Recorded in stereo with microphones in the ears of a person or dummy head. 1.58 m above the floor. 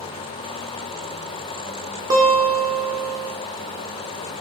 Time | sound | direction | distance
2.1 | a guitar | 25° right (ahead or behind) | 1.1 m